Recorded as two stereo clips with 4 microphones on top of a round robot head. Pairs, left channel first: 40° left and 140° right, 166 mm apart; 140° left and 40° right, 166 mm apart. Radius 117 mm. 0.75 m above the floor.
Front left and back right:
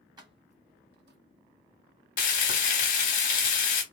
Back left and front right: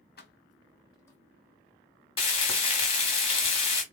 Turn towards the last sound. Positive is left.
turn(degrees=80)